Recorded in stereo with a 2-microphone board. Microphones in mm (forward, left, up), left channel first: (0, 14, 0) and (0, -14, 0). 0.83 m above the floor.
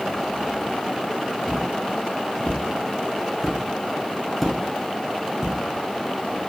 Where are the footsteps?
40° left (ahead or behind), 1.8 m; by 5.5 s 25° right (ahead or behind), 0.9 m.